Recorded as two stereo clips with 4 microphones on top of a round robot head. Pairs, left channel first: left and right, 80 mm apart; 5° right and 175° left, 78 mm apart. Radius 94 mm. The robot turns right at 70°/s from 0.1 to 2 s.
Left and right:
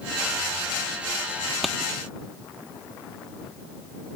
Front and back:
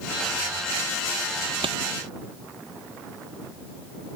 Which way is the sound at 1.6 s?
Straight behind.